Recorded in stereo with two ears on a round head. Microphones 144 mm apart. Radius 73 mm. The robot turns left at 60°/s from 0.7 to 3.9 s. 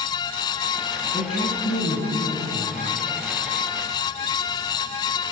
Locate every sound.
1.1 s a woman speaking: 140° left, 5 m; by 2.8 s 40° left, 5 m